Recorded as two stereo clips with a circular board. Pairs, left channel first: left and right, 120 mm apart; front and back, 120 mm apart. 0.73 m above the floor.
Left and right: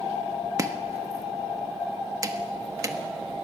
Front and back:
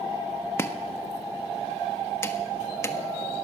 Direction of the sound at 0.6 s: 50° right.